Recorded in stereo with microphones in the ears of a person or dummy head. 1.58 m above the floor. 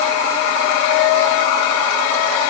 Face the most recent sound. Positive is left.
No sound to turn to.